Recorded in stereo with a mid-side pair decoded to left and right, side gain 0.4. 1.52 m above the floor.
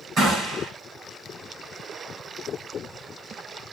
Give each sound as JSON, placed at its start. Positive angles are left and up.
{"t": 0.2, "sound": "a gunshot", "azimuth_deg": -60, "distance_m": 7.0}